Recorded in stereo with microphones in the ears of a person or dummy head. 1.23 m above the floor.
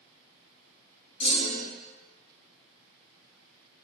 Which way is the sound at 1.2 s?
35° left (ahead or behind).